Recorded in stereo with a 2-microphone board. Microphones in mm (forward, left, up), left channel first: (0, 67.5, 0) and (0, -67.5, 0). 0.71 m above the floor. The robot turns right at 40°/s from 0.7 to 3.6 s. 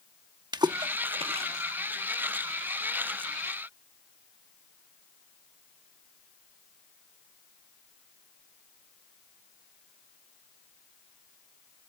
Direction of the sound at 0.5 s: 30° right (ahead or behind).